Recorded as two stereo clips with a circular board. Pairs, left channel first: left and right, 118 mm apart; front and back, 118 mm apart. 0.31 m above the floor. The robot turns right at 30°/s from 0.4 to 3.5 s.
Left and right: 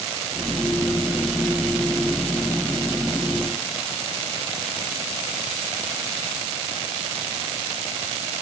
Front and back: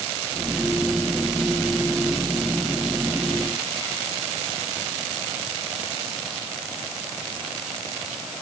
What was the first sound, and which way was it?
Only background noise.